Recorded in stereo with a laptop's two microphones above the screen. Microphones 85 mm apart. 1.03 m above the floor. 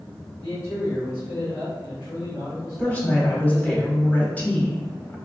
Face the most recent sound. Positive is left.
turn(degrees=20)  # may be behind; listen again after turning